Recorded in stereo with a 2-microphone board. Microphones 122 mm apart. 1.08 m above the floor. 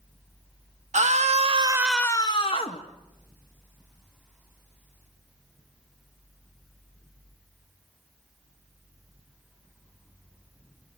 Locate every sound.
0.9 s a scream: 75° right (ahead or behind), 1.2 m; by 2.8 s 55° left (ahead or behind), 1.3 m